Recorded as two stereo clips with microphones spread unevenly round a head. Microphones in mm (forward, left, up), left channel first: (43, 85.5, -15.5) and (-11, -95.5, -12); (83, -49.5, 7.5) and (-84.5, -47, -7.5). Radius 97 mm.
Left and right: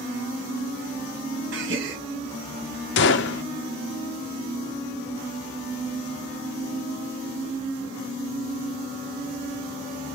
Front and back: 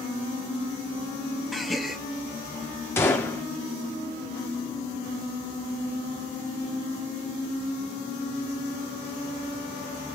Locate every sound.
1.5 s a gasp: 95° right, 1.3 m
3.0 s a gunshot: 80° left, 0.5 m